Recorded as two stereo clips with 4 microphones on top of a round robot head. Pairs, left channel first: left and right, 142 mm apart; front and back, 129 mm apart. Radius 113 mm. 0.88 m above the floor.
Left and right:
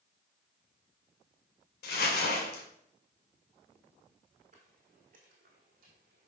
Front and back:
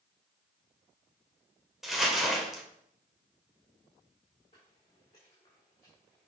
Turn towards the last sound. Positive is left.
turn(degrees=-80)